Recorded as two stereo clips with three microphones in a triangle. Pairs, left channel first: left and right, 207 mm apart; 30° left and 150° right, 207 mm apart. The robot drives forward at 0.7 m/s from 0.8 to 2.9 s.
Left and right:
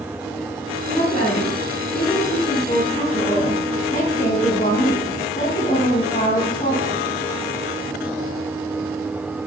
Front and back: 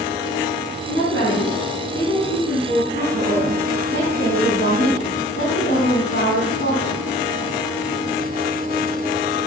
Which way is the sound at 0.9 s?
35° left.